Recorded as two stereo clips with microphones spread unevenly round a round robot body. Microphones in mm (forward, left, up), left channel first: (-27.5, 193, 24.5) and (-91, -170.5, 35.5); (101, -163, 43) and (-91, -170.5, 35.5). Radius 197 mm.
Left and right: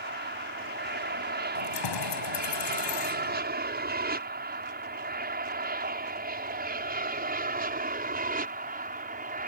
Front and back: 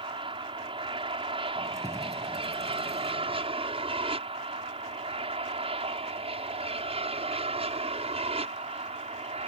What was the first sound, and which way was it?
An aircraft, 140° right.